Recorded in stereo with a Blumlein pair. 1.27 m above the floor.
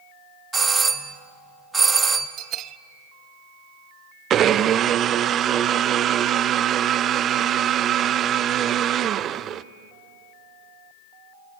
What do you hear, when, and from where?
0.5 s a doorbell: 10° right, 1.3 m
2.4 s a bell: 30° right, 0.6 m
4.3 s a blender: 25° right, 0.6 m